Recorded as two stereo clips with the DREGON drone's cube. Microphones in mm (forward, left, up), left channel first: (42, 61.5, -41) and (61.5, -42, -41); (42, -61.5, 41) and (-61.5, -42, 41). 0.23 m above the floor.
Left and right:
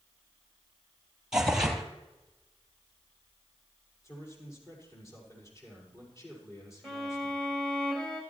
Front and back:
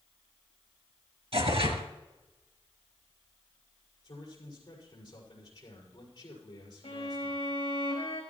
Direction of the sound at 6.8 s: 20° left.